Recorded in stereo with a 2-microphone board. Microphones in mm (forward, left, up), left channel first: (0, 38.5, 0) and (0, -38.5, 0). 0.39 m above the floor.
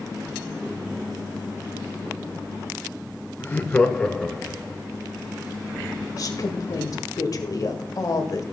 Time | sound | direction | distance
3.4 | laughter | 30° left (ahead or behind) | 1.0 m
6.2 | a woman speaking | 50° left (ahead or behind) | 1.5 m